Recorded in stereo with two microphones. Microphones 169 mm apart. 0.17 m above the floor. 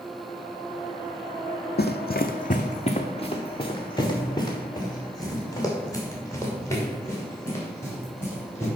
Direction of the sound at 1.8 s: 85° left.